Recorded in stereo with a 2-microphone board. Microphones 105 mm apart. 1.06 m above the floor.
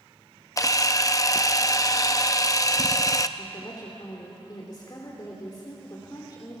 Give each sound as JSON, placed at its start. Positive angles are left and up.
{"t": 0.6, "sound": "a camera shutter", "side_deg": 35, "distance_m": 0.6}
{"t": 3.4, "sound": "a woman speaking", "side_deg": 40, "distance_m": 3.0}